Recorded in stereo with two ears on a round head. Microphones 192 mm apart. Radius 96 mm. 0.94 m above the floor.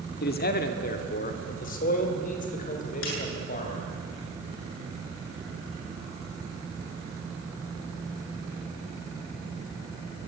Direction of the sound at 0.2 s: 50° left (ahead or behind).